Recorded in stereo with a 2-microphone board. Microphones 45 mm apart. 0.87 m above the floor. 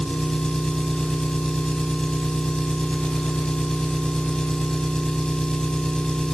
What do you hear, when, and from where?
0.0 s an engine running: 20° left (ahead or behind), 3.5 m